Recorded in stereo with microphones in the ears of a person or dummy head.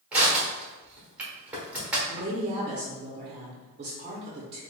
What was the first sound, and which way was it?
Crushing, 5° right (ahead or behind).